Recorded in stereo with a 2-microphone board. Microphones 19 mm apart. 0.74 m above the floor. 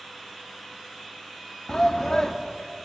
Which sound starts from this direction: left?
A shout, at 1.7 s.